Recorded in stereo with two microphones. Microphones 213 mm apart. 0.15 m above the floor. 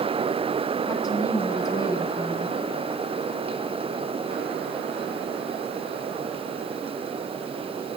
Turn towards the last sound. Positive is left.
turn(degrees=15)  # may be behind; listen again after turning